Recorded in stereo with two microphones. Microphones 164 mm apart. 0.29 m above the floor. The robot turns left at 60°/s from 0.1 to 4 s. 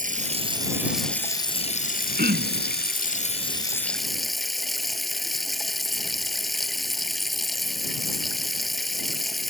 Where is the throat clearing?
70° right (ahead or behind).